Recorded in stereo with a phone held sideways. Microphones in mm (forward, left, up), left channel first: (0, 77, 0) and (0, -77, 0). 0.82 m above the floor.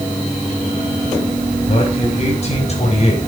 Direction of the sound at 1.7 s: 45° left (ahead or behind).